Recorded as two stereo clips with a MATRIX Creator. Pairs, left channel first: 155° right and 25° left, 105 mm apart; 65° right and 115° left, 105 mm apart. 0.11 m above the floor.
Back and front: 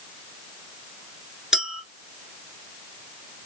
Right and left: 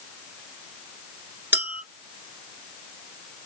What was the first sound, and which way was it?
A clink, 100° left.